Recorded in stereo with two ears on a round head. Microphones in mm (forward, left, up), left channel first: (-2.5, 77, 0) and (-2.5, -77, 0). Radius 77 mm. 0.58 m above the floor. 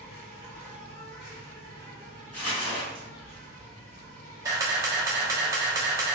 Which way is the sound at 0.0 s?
60° left (ahead or behind).